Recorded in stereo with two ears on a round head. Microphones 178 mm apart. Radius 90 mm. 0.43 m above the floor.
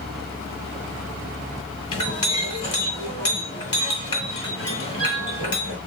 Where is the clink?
25° left (ahead or behind), 2 m.